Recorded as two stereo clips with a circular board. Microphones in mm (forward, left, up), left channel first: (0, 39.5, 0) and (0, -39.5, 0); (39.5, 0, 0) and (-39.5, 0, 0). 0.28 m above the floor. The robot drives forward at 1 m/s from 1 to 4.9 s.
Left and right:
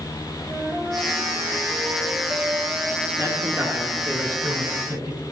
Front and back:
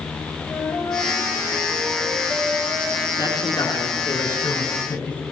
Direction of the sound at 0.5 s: 40° right.